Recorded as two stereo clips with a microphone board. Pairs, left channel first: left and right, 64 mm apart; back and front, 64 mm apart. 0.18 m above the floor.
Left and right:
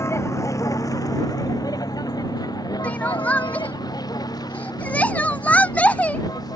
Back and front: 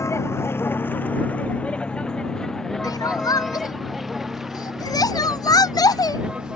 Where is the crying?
160° left.